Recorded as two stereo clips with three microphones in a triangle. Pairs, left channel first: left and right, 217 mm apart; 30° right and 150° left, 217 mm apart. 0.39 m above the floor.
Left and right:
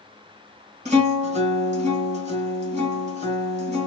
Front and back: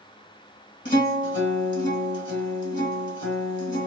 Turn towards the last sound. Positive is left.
turn(degrees=-40)